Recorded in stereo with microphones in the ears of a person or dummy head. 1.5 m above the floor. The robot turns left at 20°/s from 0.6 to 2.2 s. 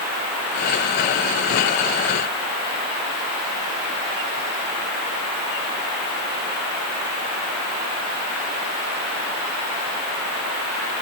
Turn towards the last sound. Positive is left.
No sound to turn to.